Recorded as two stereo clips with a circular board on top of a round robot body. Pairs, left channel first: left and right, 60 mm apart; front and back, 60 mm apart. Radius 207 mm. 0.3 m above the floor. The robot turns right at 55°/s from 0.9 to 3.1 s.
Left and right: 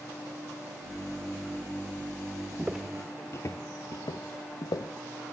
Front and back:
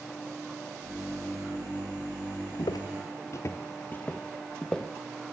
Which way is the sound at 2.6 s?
20° right.